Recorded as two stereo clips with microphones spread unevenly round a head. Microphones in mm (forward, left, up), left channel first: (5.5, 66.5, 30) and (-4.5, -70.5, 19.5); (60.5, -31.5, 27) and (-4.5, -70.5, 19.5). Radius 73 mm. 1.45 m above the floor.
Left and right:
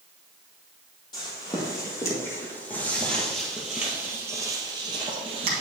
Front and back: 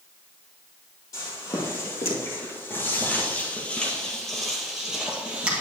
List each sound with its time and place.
1.1 s footsteps: 40° left, 2 m; by 5.6 s 85° right, 1.7 m